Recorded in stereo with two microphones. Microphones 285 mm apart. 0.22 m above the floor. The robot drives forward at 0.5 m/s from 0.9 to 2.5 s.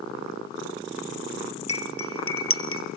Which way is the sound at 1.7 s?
55° left (ahead or behind).